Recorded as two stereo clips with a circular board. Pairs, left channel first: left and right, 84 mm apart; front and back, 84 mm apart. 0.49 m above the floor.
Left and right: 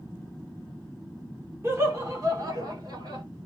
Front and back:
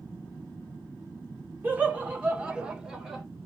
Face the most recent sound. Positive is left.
turn(degrees=-95)